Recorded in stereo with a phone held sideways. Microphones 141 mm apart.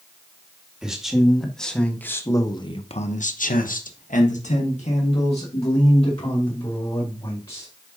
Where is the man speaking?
5° right (ahead or behind), 2 m; by 7.7 s 40° left (ahead or behind), 3.5 m.